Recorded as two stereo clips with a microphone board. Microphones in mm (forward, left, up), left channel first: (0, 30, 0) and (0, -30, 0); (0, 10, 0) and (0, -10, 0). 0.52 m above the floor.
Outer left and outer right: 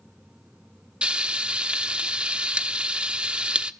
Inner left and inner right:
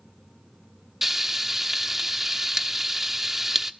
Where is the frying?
15° right (ahead or behind), 1.2 m.